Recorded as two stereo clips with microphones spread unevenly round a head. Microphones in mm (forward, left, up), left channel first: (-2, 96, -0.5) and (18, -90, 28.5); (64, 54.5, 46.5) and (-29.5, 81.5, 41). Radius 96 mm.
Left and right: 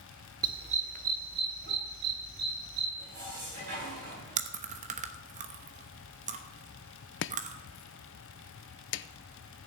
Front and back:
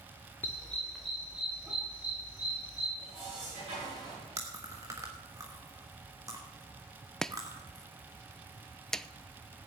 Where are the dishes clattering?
135° right, 9 m.